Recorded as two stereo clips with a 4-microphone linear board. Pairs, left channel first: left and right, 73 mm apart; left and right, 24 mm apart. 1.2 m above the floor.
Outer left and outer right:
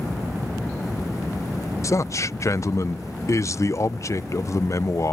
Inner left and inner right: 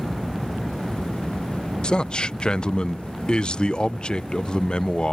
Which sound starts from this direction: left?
A man speaking, at 1.8 s.